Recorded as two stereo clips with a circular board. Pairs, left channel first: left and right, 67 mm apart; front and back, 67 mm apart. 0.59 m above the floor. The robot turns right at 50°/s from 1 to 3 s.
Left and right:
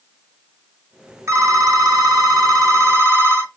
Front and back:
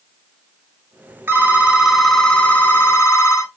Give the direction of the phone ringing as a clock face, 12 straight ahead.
4 o'clock.